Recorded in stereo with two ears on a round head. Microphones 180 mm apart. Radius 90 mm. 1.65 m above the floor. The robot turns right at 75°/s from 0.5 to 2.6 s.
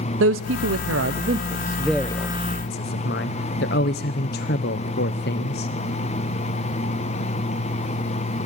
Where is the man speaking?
75° right (ahead or behind), 0.8 m; by 5.7 s 55° left (ahead or behind), 0.8 m.